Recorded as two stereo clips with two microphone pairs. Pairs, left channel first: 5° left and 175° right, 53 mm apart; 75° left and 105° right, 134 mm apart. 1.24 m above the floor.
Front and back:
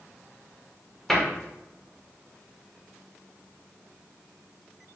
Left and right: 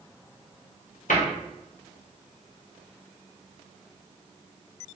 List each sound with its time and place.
1.1 s a cupboard door: 90° left, 0.9 m